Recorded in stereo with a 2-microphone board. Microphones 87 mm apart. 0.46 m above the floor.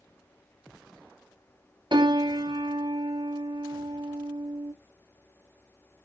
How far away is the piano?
About 2.5 m.